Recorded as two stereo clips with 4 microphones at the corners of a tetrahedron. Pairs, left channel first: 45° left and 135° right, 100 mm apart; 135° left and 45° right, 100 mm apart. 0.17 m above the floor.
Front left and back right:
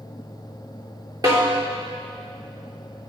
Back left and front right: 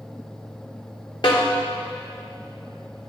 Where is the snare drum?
175° left, 3 m.